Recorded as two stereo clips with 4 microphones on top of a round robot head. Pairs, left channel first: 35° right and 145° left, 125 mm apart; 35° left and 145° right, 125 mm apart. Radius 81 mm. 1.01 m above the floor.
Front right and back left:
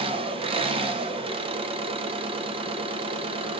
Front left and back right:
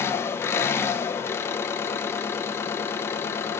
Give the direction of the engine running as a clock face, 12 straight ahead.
9 o'clock.